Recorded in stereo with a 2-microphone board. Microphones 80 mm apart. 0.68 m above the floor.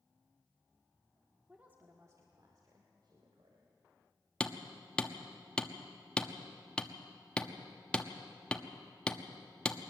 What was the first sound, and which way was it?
A woman speaking, 10° right (ahead or behind).